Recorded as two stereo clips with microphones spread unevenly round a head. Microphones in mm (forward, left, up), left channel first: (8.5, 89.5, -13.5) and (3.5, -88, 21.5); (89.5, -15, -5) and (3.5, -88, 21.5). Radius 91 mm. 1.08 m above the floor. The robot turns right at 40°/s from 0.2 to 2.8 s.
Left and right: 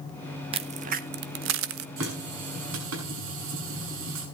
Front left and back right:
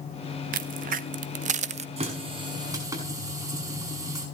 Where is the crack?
160° right, 0.9 m; by 1.9 s 105° right, 0.9 m.